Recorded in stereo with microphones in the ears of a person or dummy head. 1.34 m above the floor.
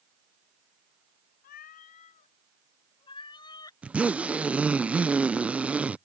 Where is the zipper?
5° right (ahead or behind).